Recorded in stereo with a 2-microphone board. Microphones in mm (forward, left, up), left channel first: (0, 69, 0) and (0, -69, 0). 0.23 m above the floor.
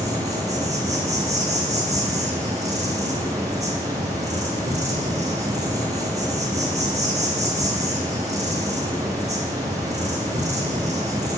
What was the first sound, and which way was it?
An insect, 55° right (ahead or behind).